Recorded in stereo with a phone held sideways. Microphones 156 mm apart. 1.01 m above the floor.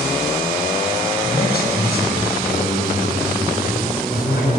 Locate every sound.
1.2 s a man speaking: 80° left, 5 m